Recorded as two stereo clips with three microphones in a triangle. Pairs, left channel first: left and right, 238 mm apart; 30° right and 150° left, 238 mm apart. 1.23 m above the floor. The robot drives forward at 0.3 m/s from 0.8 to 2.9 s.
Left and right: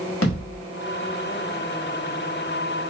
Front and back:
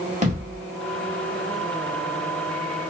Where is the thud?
95° left, 1.3 m.